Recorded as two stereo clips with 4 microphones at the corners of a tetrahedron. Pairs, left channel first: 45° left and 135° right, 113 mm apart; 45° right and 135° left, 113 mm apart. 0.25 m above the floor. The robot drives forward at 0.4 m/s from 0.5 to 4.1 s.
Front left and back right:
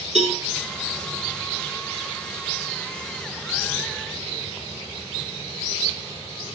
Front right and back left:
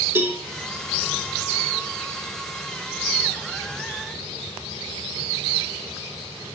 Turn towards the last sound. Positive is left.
turn(degrees=-165)